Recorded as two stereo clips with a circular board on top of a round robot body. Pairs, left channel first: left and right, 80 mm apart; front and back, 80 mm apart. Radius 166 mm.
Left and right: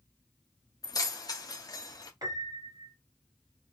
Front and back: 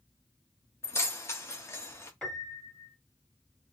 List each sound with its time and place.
0.8 s keys jangling: 55° left, 0.8 m
2.2 s a piano: 80° right, 2 m